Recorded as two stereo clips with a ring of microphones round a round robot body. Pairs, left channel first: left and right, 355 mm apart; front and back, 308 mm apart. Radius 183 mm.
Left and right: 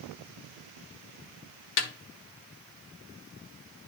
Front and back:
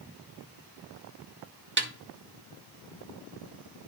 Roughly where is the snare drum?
Behind left.